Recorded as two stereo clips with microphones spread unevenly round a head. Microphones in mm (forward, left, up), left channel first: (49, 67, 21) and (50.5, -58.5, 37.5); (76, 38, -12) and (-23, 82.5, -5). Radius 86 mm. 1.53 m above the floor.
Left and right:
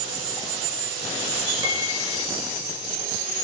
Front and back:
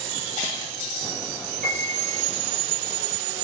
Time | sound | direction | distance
1.6 | a piano | 160° right | 6 m